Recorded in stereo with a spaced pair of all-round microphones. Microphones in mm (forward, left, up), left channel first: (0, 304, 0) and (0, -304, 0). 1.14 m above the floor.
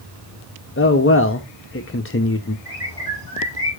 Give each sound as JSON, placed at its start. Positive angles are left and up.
{"t": 0.8, "sound": "a man speaking", "side_deg": 25, "distance_m": 0.5}
{"t": 2.6, "sound": "a bird", "side_deg": -40, "distance_m": 4.5}